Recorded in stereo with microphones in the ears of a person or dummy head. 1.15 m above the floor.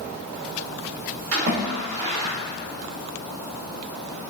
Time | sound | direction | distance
1.3 | a splash | 55° right (ahead or behind) | 1.5 m